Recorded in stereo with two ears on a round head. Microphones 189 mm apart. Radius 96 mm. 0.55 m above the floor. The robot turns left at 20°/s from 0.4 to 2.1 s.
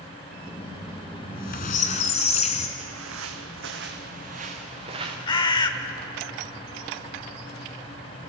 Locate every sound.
1.2 s a squeak: 50° left (ahead or behind), 1.8 m; by 2.7 s 30° left (ahead or behind), 1.8 m
2.8 s footsteps: 70° right (ahead or behind), 1.9 m; by 5.2 s 20° right (ahead or behind), 3 m
5.3 s a bird: 20° left (ahead or behind), 1.0 m